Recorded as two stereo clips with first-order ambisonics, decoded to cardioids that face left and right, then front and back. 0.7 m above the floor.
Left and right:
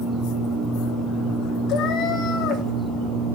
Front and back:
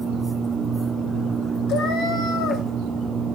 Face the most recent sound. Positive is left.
turn(degrees=45)